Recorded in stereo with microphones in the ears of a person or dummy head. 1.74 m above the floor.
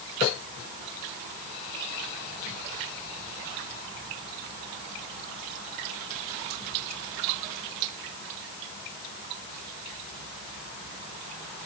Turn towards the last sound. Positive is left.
No sound to turn to.